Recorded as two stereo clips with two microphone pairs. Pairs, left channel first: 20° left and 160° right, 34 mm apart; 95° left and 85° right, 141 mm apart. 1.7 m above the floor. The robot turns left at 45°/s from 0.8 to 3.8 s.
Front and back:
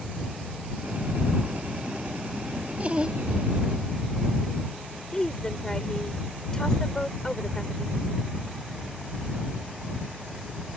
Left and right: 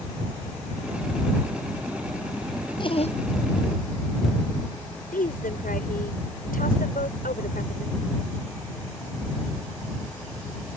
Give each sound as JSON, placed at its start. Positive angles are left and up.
{"t": 2.8, "sound": "laughter", "azimuth_deg": 150}
{"t": 5.1, "sound": "a woman speaking", "azimuth_deg": 95}